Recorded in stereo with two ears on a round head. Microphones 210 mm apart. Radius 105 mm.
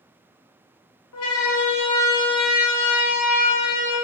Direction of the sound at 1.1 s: 70° left (ahead or behind).